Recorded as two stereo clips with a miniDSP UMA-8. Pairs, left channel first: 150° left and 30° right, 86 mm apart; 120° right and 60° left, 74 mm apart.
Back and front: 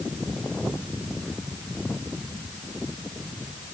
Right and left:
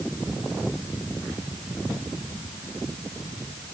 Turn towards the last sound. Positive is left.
No sound to turn to.